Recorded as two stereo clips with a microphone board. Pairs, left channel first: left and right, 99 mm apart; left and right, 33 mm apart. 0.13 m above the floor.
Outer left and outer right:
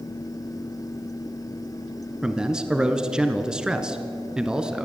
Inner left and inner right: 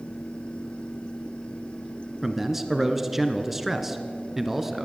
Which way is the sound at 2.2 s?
10° right (ahead or behind).